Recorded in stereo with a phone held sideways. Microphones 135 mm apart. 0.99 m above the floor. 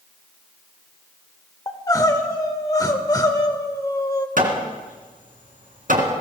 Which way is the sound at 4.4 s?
75° right (ahead or behind).